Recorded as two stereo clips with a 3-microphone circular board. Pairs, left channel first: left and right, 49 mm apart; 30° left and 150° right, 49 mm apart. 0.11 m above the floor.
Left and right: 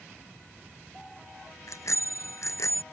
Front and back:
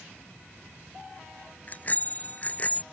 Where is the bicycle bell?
85° left; by 2.8 s 90° left.